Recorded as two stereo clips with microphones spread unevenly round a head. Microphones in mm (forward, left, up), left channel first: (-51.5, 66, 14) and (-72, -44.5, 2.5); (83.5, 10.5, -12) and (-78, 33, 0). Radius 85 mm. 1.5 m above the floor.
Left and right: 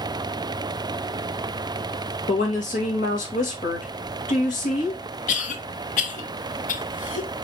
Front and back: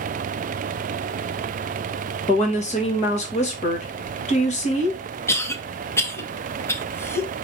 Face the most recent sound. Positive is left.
turn(degrees=70)